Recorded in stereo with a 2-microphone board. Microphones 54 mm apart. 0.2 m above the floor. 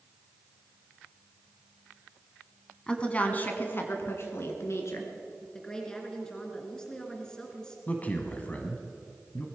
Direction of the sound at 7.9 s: 30° left (ahead or behind).